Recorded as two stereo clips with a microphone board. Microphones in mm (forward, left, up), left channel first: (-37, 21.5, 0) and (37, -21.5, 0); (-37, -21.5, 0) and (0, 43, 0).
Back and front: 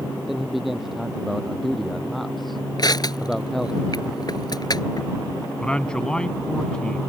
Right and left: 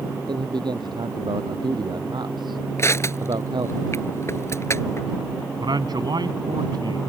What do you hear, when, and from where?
0.3 s a man speaking: 55° left; by 3.8 s 65° left
2.8 s crushing: 170° right
5.6 s a man speaking: 70° left